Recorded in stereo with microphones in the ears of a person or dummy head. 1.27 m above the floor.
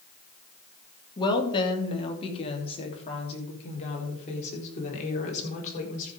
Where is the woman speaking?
30° left (ahead or behind), 2 m; by 6.1 s 50° left (ahead or behind), 4.5 m.